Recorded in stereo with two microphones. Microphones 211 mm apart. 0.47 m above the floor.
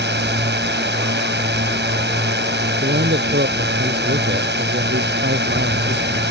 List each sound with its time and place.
0.0 s a drone: 55° right (ahead or behind)
2.8 s a man speaking: 55° right (ahead or behind)